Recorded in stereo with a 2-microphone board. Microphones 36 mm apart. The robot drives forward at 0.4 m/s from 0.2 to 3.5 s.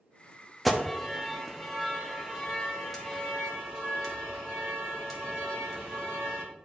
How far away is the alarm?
About 0.8 m.